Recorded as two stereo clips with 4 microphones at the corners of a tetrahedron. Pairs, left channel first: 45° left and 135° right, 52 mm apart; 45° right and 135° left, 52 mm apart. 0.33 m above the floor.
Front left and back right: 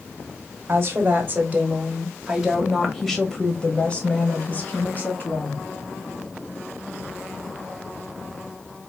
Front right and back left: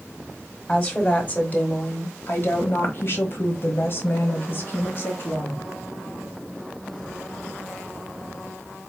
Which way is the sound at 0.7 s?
105° right.